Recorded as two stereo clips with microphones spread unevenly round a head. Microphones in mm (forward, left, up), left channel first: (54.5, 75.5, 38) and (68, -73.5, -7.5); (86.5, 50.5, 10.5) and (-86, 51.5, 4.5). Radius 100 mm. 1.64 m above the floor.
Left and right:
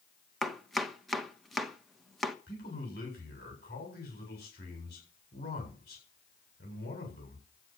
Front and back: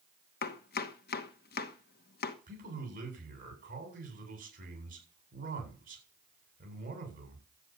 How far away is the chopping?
About 1.3 m.